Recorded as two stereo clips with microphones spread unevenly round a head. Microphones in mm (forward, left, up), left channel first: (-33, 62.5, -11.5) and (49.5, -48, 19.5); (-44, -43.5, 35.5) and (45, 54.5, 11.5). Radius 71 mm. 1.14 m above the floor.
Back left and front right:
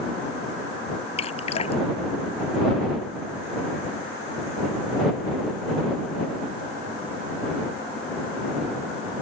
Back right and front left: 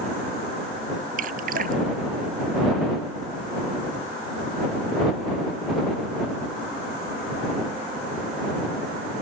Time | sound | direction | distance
1.2 | dripping | 75° left | ?